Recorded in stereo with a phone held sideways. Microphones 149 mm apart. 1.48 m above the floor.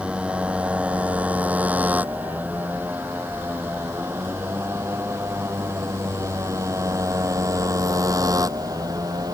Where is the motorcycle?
10° right (ahead or behind); by 9.3 s 25° right (ahead or behind).